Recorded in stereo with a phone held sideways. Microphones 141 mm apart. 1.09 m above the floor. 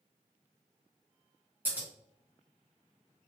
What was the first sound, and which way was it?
Scissors, 10° right (ahead or behind).